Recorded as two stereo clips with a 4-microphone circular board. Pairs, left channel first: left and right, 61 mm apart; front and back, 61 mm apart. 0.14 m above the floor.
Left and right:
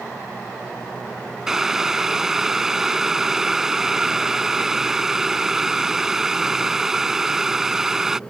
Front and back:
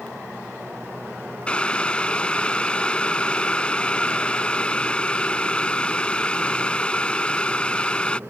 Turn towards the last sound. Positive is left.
turn(degrees=-20)